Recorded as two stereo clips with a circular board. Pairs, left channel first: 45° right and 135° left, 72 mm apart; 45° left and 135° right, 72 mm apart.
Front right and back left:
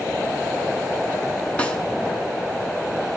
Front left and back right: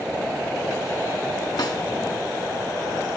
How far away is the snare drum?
About 1.4 m.